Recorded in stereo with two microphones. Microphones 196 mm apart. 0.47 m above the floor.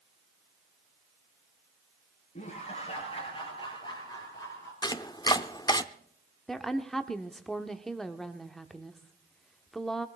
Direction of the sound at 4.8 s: 20° left (ahead or behind).